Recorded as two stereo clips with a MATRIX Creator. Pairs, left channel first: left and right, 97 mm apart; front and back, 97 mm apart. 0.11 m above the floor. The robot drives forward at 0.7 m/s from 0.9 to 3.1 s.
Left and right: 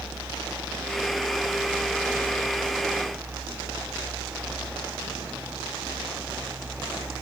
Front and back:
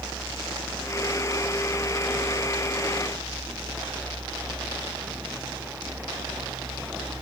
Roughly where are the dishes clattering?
No dishes clattering in this recording.